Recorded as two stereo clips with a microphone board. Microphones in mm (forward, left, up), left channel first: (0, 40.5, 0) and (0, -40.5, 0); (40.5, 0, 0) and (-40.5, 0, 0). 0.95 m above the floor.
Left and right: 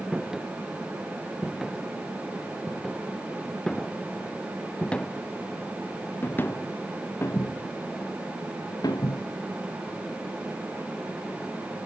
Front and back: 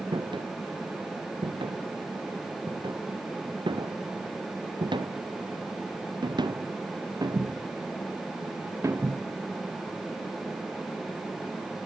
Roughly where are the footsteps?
Behind.